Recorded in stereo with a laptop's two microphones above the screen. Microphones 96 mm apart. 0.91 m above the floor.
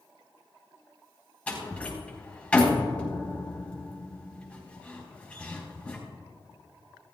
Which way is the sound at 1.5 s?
15° left (ahead or behind).